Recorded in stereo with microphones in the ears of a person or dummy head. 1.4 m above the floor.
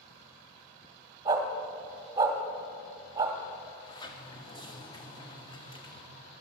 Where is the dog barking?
25° right (ahead or behind), 1.6 m.